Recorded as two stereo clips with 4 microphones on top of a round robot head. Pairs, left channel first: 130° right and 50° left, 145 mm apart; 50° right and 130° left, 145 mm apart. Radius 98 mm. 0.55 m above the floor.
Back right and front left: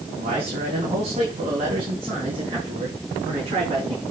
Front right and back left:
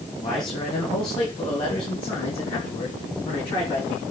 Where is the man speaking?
5° left, 4 m; by 4.0 s 5° right, 6 m.